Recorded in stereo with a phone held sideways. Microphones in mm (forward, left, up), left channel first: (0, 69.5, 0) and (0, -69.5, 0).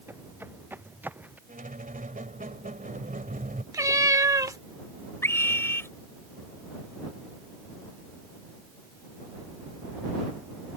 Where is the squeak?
80° right.